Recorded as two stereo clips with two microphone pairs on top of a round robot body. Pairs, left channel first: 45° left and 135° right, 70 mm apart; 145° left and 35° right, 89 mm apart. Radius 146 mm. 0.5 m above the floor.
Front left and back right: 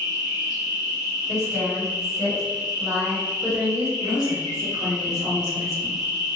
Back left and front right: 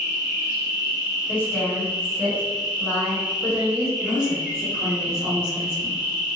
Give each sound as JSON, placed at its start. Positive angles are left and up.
{"t": 0.0, "sound": "an insect", "azimuth_deg": -115, "distance_m": 1.1}
{"t": 1.3, "sound": "a woman speaking", "azimuth_deg": -150, "distance_m": 1.6}
{"t": 4.0, "sound": "a woman speaking", "azimuth_deg": 150, "distance_m": 1.7}